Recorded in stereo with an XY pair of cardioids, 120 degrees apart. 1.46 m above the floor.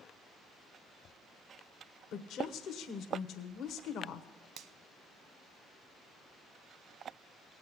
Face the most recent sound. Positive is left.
turn(degrees=-65)